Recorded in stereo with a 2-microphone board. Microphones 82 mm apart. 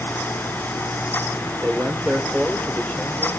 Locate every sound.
1.6 s a man speaking: 20° right (ahead or behind), 1.4 m; by 3.3 s 15° left (ahead or behind), 2 m